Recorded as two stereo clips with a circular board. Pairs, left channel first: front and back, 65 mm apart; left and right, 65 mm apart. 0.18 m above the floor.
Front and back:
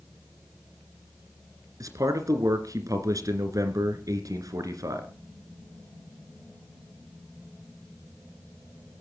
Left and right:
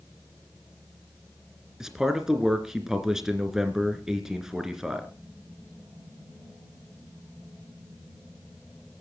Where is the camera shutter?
No camera shutter in this recording.